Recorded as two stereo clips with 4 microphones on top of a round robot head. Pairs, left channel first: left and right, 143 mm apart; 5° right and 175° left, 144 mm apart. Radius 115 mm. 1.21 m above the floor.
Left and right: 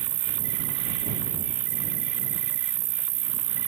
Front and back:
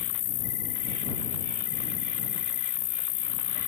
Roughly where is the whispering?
I don't hear whispering.